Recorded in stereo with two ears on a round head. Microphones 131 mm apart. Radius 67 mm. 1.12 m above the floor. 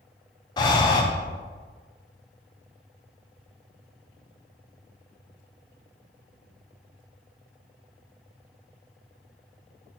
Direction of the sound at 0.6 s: 25° left (ahead or behind).